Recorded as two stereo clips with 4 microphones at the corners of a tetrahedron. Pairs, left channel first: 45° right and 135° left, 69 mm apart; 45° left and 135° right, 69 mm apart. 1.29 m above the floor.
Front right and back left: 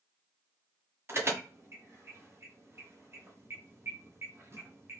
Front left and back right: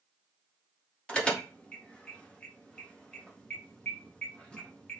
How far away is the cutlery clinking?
No cutlery clinking in this recording.